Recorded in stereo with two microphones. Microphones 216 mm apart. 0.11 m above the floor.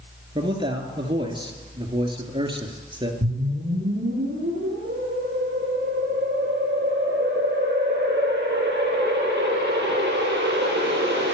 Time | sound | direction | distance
0.3 | a man speaking | 25° right (ahead or behind) | 1.9 m
3.2 | a whoosh | 55° right (ahead or behind) | 9 m